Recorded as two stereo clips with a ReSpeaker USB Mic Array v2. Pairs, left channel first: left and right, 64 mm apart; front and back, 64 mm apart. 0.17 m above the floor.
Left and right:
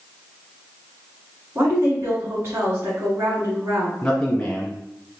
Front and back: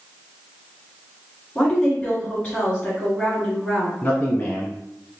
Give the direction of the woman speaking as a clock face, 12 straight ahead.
3 o'clock.